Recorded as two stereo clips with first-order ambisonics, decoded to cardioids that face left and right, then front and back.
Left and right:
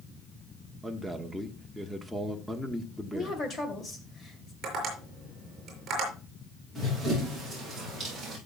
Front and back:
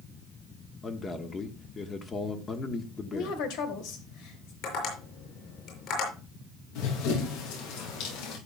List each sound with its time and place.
0.8 s a man speaking: straight ahead, 1.0 m
3.1 s a woman speaking: 20° left, 2.5 m
4.6 s tapping: 30° right, 6 m
6.8 s running footsteps: 5° right, 7 m; by 8.4 s 10° right, 7 m